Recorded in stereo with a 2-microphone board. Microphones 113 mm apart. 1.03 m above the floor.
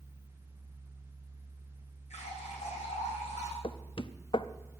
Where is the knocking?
50° left (ahead or behind), 0.6 m.